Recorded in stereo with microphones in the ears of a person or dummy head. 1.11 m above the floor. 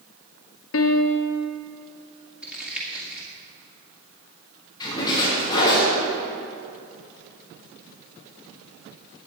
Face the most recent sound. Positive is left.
turn(degrees=25)  # may be behind; listen again after turning